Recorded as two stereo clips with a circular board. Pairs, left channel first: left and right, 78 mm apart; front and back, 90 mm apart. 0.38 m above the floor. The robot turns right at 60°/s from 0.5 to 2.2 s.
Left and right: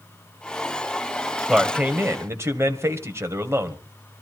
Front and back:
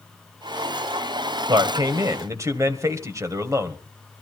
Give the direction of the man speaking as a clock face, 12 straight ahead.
6 o'clock.